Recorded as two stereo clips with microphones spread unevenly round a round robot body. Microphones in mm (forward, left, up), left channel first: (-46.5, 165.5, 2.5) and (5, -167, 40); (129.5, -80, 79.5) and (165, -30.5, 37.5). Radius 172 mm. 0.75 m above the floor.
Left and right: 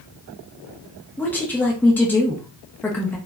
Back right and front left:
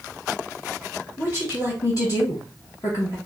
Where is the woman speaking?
175° left, 0.7 m.